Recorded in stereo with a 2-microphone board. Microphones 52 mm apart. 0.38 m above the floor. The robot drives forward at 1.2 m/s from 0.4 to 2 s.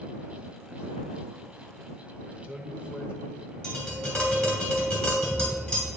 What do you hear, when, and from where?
2.3 s a man speaking: 25° right (ahead or behind), 1.1 m
3.6 s tapping: 20° left (ahead or behind), 2.5 m